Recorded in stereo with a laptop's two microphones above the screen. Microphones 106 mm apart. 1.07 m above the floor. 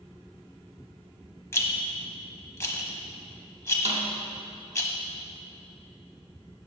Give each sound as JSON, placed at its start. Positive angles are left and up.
{"t": 1.5, "sound": "a rattle", "side_deg": 25, "distance_m": 0.9}
{"t": 3.9, "sound": "a snare drum", "side_deg": -80, "distance_m": 0.9}